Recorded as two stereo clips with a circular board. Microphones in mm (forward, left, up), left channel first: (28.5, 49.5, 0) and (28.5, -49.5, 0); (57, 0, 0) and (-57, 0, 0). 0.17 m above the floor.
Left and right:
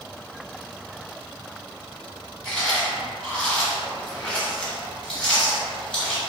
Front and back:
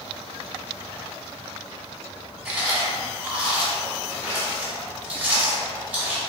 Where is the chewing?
140° left, 1.0 m.